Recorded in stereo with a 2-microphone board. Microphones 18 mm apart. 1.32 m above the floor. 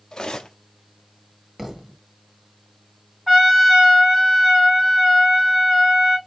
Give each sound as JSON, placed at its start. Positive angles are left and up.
{"t": 0.1, "sound": "cutlery clinking", "side_deg": 40, "distance_m": 1.0}
{"t": 1.6, "sound": "a thud", "side_deg": -20, "distance_m": 1.1}
{"t": 3.3, "sound": "a trumpet", "side_deg": 0, "distance_m": 3.0}